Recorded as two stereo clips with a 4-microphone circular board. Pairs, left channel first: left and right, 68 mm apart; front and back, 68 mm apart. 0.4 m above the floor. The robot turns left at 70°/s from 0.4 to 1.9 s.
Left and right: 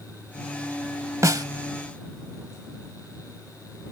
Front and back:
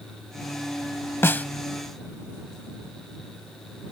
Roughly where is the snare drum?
Ahead right.